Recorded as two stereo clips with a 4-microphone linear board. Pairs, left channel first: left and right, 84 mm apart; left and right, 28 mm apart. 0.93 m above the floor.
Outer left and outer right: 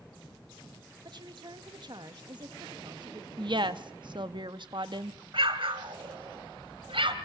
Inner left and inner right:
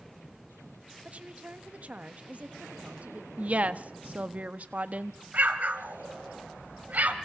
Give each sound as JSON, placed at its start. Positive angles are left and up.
{"t": 1.1, "sound": "a woman speaking", "side_deg": -55, "distance_m": 1.6}
{"t": 3.4, "sound": "a woman speaking", "side_deg": -60, "distance_m": 1.2}
{"t": 5.3, "sound": "an explosion", "side_deg": -75, "distance_m": 1.9}